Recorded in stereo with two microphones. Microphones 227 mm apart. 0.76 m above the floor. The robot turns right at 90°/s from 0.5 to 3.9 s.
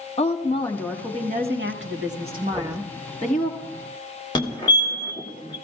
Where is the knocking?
5° left (ahead or behind), 3 m; by 2.8 s 30° left (ahead or behind), 3 m.